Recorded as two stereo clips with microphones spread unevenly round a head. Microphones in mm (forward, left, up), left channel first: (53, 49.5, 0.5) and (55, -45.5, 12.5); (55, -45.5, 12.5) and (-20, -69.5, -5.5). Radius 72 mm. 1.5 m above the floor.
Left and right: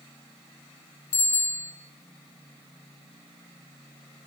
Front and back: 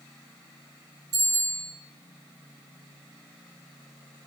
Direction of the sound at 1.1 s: 125° left.